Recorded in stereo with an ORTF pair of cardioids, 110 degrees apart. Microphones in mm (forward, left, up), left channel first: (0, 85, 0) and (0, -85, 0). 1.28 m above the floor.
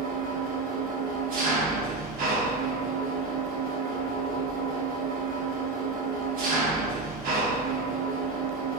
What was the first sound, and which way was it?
An engine running, 55° right.